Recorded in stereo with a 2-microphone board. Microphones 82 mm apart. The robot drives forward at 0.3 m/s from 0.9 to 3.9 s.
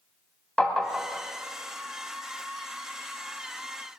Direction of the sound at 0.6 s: 5° left (ahead or behind).